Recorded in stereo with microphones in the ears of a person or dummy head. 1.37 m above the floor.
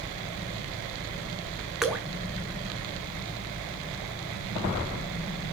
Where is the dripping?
Centre (ahead or behind), 1.0 m.